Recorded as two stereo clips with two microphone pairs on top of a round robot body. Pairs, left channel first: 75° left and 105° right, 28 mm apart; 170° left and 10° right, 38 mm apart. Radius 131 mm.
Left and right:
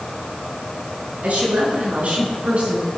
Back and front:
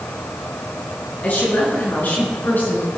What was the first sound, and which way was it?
A woman speaking, 145° right.